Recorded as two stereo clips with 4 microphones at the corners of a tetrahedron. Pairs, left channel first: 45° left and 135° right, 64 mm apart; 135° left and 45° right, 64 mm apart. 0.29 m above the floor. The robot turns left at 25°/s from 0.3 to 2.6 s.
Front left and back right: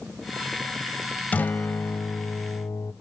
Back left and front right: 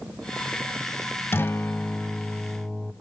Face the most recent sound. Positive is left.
turn(degrees=70)